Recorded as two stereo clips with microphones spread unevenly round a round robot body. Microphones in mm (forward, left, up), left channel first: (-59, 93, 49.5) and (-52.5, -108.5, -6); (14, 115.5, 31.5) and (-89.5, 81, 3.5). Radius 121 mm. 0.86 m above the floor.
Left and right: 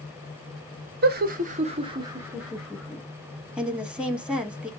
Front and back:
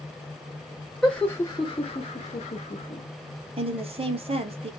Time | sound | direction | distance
1.0 | laughter | 75° right | 0.7 m
3.6 | a woman speaking | 170° right | 1.2 m